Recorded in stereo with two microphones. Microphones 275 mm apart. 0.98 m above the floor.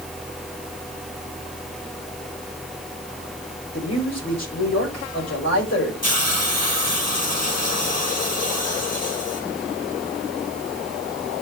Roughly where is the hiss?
Left.